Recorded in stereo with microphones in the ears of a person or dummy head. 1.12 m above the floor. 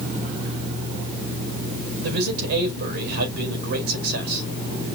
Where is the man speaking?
60° right (ahead or behind), 4.5 m.